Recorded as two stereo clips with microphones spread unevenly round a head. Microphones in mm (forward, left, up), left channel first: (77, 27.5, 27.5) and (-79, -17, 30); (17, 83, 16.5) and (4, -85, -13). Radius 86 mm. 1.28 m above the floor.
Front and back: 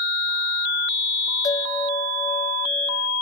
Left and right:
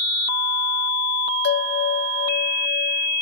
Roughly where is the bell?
Left.